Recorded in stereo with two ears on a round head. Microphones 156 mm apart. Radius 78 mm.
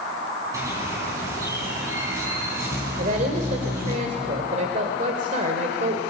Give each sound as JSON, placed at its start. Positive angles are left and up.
{"t": 0.5, "sound": "a bird", "side_deg": -20, "distance_m": 5.5}
{"t": 3.0, "sound": "a woman speaking", "side_deg": -45, "distance_m": 2.0}